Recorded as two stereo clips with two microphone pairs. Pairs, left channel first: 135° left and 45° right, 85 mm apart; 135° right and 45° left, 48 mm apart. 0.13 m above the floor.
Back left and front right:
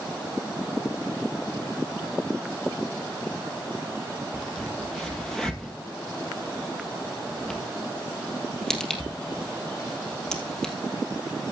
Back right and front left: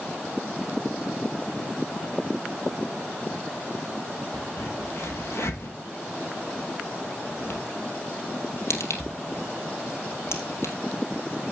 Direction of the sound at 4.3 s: 140° right.